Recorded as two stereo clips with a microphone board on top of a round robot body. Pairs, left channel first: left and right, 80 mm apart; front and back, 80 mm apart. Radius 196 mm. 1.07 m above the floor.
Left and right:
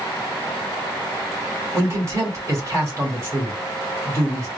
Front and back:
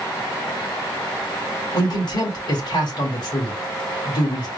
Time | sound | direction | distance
1.7 | a man speaking | 35° right | 2 m